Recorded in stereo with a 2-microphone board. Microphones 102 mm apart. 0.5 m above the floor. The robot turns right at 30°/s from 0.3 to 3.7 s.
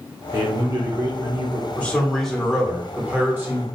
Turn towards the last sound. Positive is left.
turn(degrees=-145)